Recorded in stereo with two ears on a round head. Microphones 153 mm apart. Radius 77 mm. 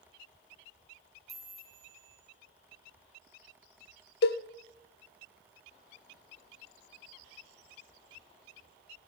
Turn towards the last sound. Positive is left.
turn(degrees=65)  # may be behind; listen again after turning